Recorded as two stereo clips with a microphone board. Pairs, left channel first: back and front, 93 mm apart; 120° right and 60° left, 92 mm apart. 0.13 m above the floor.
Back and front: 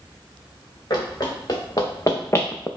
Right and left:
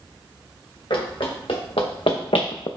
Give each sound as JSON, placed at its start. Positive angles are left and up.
{"t": 0.9, "sound": "running footsteps", "azimuth_deg": -135, "distance_m": 1.6}